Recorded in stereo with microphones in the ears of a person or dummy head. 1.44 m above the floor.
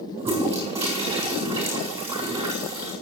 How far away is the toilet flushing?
About 4 m.